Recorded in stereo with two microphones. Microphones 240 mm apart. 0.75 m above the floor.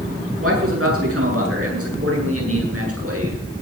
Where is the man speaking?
65° right (ahead or behind), 8.5 m; by 3.4 s 80° right, 8.5 m.